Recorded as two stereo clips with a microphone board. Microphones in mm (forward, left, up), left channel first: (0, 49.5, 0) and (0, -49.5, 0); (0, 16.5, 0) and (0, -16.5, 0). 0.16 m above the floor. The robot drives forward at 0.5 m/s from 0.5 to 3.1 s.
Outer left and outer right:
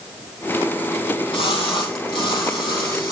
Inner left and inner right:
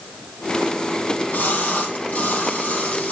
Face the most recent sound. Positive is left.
turn(degrees=50)  # may be behind; listen again after turning